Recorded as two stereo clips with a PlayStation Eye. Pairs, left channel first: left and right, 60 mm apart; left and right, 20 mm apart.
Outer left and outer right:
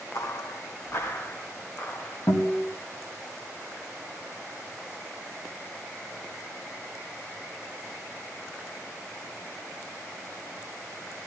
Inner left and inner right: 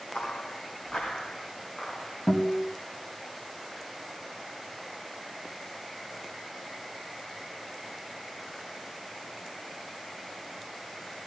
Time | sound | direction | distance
0.1 | footsteps | 65° left (ahead or behind) | 1.3 m
2.3 | a guitar | 60° left (ahead or behind) | 2.5 m